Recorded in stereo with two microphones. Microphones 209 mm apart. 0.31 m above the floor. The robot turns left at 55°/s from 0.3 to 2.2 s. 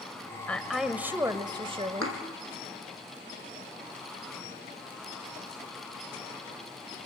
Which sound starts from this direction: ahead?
A woman speaking, at 0.5 s.